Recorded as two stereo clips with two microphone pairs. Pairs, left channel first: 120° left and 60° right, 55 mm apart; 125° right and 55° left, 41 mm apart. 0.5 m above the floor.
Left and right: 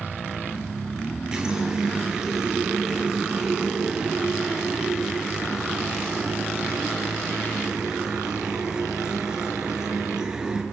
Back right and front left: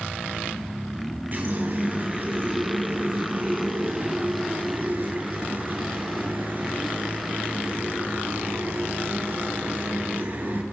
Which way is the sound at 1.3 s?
15° left.